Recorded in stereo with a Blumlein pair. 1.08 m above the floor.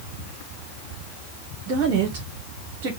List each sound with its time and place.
1.7 s a woman speaking: 35° right, 1.0 m